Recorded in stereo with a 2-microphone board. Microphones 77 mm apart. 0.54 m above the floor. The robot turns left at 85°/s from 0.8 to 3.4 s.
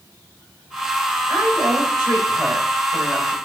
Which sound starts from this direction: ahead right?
A woman speaking, at 1.3 s.